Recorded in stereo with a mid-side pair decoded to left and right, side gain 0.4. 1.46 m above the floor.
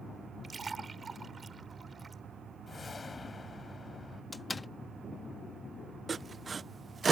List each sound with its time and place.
0.4 s a splash: 35° right
2.7 s a whoosh: 35° left
4.3 s a door slam: 25° left
6.1 s sawing: 40° right